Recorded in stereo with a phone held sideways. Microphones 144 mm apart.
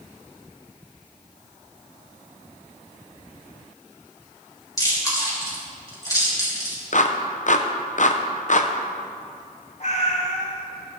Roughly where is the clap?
Left.